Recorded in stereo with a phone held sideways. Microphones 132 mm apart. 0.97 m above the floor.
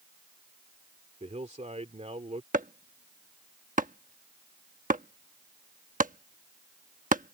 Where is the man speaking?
60° right (ahead or behind).